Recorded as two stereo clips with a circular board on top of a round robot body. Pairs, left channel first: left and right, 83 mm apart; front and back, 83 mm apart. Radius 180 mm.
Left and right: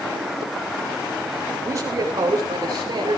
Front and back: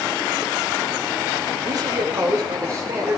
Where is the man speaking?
145° right, 4 m; by 3.2 s 120° right, 4 m.